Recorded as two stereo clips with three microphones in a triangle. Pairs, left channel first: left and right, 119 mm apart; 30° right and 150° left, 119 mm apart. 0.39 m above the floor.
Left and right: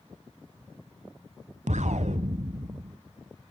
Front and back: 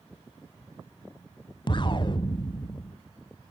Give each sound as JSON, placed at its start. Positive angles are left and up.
{"t": 1.7, "sound": "an explosion", "azimuth_deg": -80, "distance_m": 1.0}